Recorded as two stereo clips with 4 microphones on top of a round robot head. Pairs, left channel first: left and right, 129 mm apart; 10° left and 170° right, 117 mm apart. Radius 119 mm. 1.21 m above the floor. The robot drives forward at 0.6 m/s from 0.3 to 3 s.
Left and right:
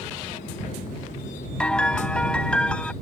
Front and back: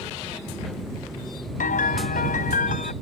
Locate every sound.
1.6 s a piano: 5° left; by 2.9 s 10° left